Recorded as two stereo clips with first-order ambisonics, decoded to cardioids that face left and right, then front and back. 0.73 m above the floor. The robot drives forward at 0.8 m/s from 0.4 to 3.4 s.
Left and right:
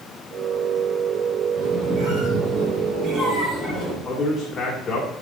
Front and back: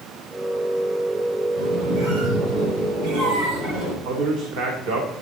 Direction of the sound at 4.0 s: 165° left.